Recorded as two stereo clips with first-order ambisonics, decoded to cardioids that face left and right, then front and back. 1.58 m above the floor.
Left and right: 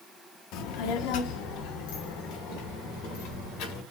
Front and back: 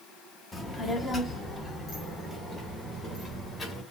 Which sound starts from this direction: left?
A child speaking, at 0.5 s.